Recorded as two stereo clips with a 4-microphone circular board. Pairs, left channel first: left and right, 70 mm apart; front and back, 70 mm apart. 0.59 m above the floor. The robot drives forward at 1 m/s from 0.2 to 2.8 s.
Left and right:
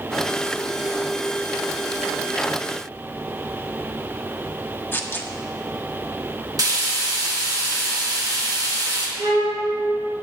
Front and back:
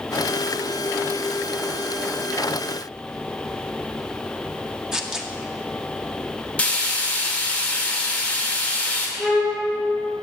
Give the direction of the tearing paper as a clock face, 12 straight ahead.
8 o'clock.